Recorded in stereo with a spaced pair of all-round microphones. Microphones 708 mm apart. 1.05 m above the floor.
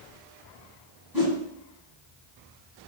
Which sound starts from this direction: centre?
A whoosh, at 1.1 s.